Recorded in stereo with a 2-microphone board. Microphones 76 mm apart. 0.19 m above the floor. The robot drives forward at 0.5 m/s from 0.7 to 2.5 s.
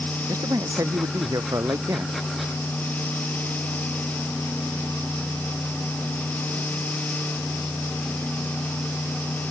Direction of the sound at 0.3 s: 45° right (ahead or behind).